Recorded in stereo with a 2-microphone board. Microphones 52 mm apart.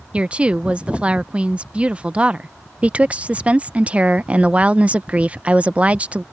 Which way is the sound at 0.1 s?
25° right (ahead or behind).